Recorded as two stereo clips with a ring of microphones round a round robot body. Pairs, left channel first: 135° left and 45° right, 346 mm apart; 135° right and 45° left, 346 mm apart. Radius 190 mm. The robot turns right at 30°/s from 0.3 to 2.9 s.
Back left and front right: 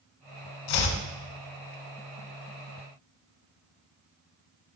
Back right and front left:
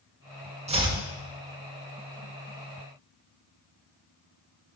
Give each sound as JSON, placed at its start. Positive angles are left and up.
{"t": 0.7, "sound": "chopping", "azimuth_deg": 120, "distance_m": 2.0}